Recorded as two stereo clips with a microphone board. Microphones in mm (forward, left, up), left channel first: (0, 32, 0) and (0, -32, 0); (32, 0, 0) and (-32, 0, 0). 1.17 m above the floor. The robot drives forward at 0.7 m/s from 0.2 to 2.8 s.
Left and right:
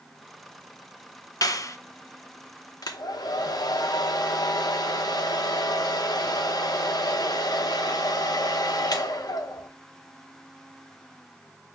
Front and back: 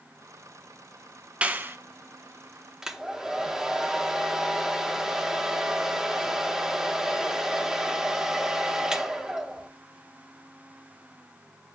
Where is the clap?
105° left, 0.6 m; by 1.8 s 130° left, 0.7 m.